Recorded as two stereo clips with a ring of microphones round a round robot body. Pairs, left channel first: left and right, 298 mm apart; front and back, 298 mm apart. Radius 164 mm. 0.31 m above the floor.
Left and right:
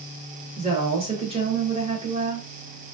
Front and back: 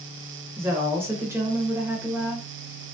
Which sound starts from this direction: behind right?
A woman speaking, at 0.6 s.